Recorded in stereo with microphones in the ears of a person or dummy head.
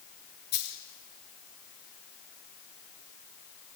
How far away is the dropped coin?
About 3.5 m.